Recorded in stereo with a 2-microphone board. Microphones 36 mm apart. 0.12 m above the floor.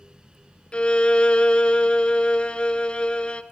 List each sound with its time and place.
0.7 s a violin: 30° left (ahead or behind), 0.7 m